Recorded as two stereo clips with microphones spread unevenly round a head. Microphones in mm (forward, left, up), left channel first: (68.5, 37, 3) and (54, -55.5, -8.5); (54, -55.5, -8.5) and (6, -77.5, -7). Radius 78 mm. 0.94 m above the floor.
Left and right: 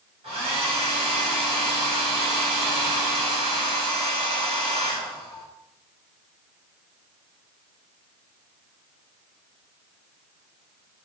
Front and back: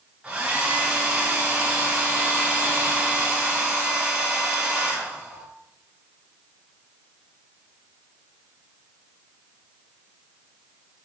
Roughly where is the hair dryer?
Right.